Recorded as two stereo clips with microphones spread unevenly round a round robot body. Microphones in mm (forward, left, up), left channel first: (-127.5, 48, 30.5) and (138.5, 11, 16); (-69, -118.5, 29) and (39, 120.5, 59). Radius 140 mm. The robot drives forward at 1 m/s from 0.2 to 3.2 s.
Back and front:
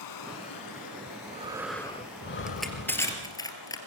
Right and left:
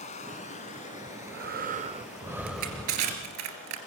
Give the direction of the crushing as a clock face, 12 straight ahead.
9 o'clock.